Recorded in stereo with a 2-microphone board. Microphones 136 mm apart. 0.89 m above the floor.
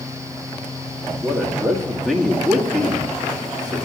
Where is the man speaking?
5° left (ahead or behind), 2 m.